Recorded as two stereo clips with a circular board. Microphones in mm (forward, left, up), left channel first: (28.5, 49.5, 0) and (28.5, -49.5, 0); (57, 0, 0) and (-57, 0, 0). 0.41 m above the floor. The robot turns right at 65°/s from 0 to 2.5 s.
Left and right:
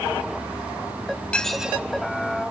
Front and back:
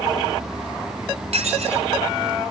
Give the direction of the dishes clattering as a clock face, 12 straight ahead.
6 o'clock.